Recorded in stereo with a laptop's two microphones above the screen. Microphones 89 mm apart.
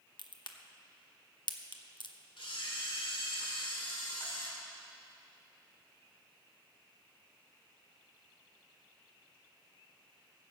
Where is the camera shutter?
85° left, 2 m.